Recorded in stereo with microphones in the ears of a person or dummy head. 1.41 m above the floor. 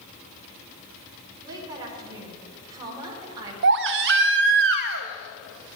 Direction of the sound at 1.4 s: 25° right (ahead or behind).